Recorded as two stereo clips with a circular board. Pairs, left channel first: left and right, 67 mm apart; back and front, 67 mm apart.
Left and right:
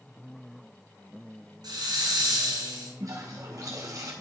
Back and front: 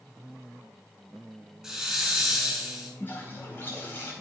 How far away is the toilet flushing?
About 4 m.